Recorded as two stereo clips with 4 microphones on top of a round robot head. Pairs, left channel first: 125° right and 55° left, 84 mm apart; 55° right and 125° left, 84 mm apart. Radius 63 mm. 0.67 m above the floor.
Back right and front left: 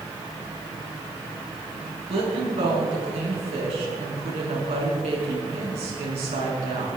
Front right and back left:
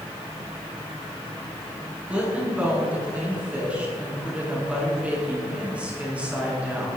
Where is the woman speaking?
50° left, 6.5 m.